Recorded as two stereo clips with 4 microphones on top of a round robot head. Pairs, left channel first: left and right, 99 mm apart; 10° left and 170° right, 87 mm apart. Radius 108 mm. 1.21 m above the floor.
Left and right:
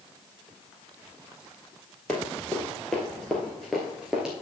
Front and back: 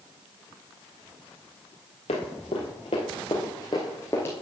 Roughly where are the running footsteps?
Ahead.